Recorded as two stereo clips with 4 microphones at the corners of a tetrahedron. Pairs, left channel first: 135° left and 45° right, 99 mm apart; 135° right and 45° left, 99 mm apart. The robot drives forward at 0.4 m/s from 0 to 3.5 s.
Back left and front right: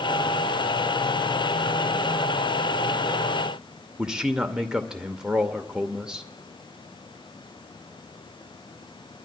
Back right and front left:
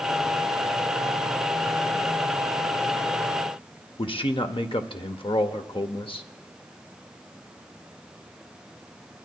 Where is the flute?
I don't hear a flute.